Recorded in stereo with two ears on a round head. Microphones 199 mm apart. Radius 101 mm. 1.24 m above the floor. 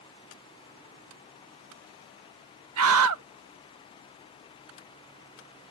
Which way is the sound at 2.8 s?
75° right (ahead or behind).